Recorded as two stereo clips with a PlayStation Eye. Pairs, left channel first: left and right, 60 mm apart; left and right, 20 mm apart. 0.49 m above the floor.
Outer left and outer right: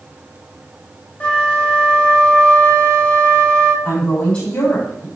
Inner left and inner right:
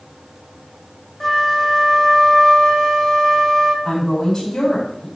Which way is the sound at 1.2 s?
20° left (ahead or behind).